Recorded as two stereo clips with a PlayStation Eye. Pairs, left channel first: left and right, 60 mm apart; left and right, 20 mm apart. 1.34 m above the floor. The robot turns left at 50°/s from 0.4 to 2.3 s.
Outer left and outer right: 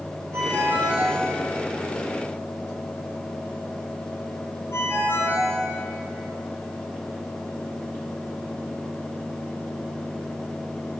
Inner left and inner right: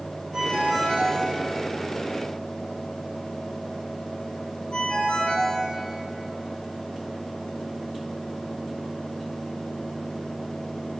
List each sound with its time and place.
0.3 s a ringtone: 50° right (ahead or behind), 9.5 m; by 5.6 s 45° left (ahead or behind), 9.5 m